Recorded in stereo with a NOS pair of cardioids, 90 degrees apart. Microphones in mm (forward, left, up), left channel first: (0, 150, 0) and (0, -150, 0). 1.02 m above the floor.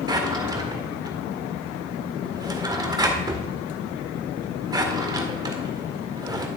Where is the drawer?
15° right, 1.7 m.